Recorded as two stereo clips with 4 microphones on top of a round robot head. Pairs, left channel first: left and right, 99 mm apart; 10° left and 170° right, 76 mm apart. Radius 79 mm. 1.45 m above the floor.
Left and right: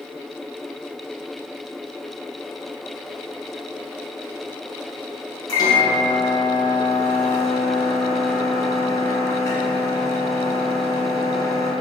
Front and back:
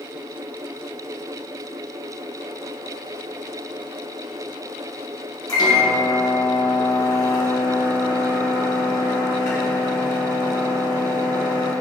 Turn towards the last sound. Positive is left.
turn(degrees=40)